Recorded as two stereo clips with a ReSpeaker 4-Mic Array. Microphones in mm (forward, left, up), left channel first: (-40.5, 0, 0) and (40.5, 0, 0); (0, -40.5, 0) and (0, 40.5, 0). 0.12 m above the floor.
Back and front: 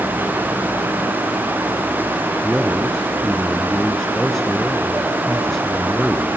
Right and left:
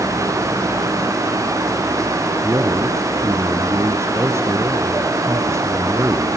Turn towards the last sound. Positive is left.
turn(degrees=95)